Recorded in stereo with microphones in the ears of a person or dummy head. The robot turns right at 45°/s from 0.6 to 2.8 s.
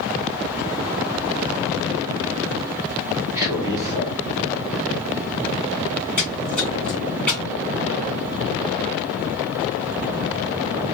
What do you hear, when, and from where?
3.4 s a man speaking: 20° right (ahead or behind), 1.2 m
6.2 s a splash: 10° left (ahead or behind), 1.8 m